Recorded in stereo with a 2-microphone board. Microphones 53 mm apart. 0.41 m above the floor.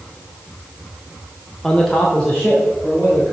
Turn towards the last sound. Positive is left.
turn(degrees=15)  # may be behind; listen again after turning